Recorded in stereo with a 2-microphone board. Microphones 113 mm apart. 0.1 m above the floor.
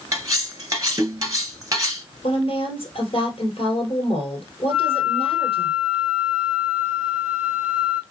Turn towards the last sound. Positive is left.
turn(degrees=-5)  # may be behind; listen again after turning